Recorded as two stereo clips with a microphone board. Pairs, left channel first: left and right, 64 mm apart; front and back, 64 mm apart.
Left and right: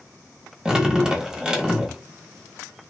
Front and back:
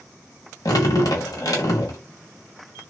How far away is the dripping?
About 1.1 m.